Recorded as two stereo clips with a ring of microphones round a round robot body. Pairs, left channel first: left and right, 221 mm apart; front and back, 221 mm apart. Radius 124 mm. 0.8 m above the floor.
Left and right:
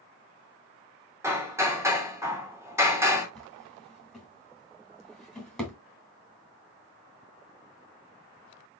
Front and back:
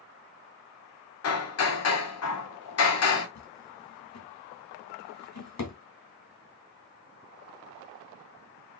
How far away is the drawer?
About 2.5 m.